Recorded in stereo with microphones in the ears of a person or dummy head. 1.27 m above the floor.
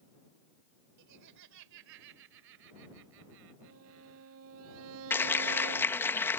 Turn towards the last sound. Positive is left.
turn(degrees=15)  # may be behind; listen again after turning